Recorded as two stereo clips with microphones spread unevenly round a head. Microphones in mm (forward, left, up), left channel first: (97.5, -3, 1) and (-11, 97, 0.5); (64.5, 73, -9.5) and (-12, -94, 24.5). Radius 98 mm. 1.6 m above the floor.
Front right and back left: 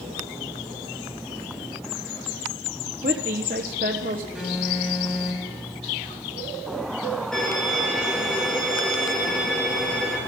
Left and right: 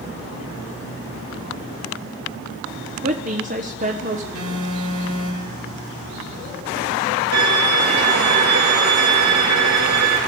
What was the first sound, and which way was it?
A woman speaking, 170° right.